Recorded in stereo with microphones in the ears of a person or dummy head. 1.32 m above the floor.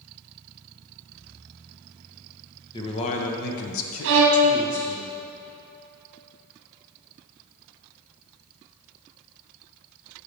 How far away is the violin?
About 0.9 m.